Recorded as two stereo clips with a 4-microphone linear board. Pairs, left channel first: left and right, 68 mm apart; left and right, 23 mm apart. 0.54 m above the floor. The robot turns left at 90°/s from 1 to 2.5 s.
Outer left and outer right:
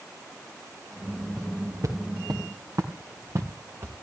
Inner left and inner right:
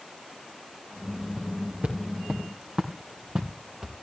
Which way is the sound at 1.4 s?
15° right (ahead or behind).